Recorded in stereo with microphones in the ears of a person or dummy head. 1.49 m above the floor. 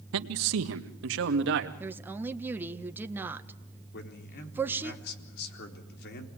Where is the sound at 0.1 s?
80° right, 1.4 m; by 1.7 s 70° right (ahead or behind), 2.5 m.